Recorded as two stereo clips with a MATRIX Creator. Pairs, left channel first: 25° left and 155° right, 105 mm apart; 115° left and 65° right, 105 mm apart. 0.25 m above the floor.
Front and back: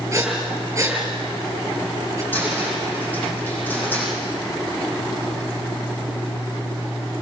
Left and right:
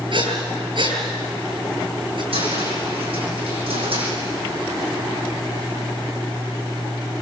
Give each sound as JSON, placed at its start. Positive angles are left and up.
{"t": 0.1, "sound": "breathing", "azimuth_deg": -100, "distance_m": 4.5}
{"t": 2.3, "sound": "a cupboard door", "azimuth_deg": -50, "distance_m": 9.5}